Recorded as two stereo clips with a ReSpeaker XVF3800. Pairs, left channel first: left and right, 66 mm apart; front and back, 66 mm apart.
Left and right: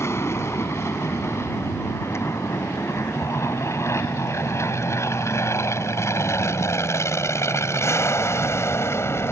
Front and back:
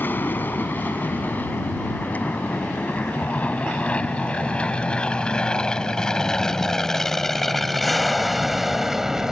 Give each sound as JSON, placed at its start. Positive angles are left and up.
{"t": 0.0, "sound": "an aircraft", "azimuth_deg": 55}